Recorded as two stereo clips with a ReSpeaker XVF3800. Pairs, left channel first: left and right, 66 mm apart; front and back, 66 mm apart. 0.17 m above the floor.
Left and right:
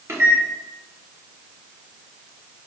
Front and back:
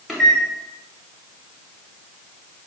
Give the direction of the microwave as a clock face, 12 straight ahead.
3 o'clock.